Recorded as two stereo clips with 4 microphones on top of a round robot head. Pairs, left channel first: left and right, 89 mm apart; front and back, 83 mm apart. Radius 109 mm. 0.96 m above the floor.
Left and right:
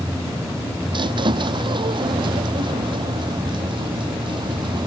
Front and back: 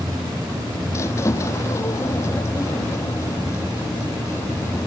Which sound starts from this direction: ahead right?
A squeak, at 0.9 s.